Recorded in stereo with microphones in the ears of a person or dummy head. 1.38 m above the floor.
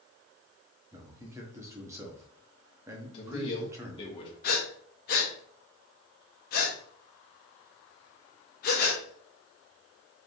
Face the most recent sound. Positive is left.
turn(degrees=50)  # may be behind; listen again after turning